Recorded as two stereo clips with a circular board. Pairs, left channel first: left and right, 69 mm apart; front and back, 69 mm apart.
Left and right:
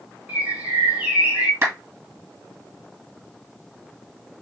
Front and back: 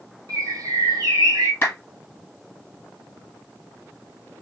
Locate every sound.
0.3 s a bird: 160° right, 1.2 m
1.6 s a clap: 50° right, 2.5 m